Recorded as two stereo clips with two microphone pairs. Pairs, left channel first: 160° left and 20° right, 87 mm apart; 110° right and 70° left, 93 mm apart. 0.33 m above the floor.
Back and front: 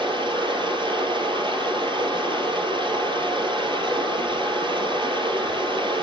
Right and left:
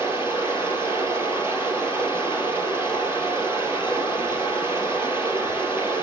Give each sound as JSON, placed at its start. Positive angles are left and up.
{"t": 0.0, "sound": "running water", "azimuth_deg": 0, "distance_m": 2.5}